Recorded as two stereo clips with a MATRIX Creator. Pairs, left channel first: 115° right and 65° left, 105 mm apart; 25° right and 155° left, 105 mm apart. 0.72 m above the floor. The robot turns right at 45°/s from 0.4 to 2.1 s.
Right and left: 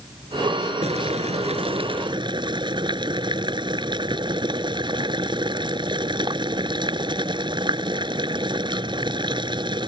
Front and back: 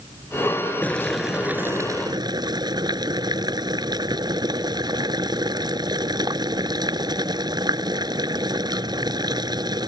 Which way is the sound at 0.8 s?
55° left.